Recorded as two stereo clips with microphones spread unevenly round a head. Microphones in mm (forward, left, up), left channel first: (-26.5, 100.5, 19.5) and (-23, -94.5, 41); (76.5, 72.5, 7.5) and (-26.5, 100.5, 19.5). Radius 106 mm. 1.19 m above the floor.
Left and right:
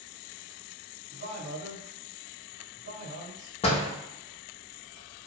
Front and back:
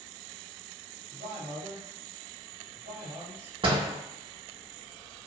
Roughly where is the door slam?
Behind left.